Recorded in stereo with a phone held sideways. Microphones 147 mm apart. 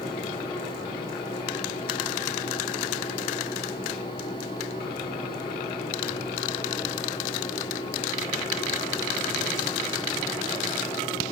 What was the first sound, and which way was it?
A fan, 30° left (ahead or behind).